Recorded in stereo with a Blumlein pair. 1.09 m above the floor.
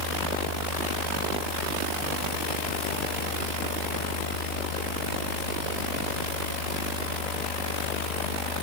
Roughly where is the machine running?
Ahead left.